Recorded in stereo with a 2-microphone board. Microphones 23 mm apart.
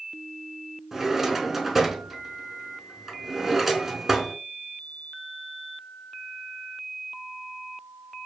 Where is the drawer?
15° right (ahead or behind), 0.5 m.